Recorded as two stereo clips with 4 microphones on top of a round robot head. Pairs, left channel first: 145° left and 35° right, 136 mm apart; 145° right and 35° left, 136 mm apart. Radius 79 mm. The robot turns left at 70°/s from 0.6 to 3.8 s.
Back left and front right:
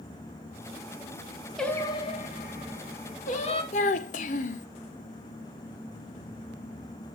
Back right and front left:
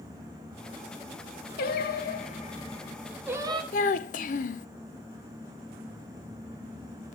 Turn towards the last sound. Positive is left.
turn(degrees=180)